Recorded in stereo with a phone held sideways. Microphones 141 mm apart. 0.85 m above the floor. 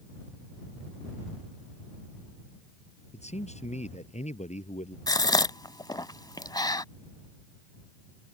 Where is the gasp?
30° left (ahead or behind).